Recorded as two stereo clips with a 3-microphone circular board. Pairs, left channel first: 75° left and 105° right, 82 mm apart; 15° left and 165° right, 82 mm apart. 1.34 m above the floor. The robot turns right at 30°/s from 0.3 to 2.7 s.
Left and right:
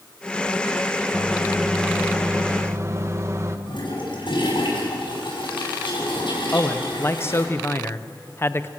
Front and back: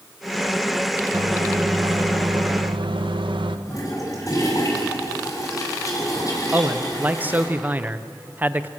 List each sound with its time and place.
1.1 s a microwave: 155° left, 1.1 m; by 3.6 s 160° right, 1.1 m
3.7 s a toilet flushing: 60° left, 7.5 m
6.5 s a man speaking: 130° left, 0.8 m